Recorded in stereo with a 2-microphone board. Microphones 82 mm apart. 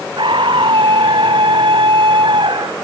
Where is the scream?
75° right (ahead or behind).